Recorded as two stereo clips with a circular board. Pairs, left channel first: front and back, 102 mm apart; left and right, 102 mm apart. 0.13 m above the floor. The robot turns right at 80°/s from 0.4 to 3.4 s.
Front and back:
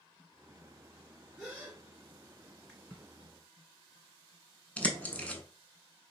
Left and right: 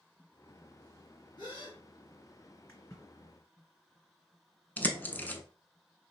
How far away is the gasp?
About 2.5 m.